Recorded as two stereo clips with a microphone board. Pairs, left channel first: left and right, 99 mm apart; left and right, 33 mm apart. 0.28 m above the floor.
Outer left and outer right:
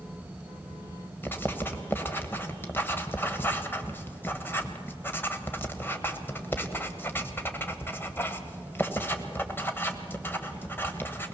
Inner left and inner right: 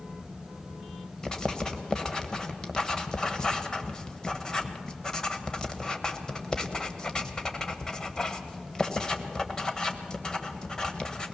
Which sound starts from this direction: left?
Writing, at 1.2 s.